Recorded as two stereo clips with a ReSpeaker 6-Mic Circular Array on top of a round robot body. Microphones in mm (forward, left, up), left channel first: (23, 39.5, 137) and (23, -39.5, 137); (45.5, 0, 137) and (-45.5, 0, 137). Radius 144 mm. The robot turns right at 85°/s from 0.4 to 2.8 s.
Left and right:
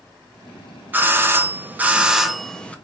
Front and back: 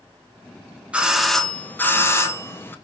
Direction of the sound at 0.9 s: 120° right.